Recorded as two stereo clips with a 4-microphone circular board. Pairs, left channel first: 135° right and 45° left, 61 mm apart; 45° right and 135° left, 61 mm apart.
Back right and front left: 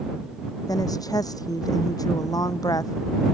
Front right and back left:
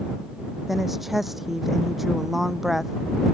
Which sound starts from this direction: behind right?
A woman speaking, at 0.7 s.